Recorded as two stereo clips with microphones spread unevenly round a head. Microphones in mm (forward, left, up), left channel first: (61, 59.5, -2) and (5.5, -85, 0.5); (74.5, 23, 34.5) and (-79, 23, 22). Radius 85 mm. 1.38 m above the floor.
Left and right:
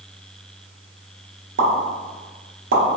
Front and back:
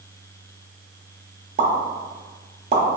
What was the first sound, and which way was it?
A pop, 130° right.